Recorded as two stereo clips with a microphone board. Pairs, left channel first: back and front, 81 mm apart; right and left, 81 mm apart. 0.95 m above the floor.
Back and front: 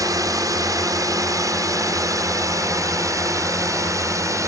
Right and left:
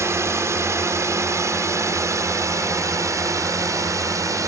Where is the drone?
40° left; by 4.5 s 45° left.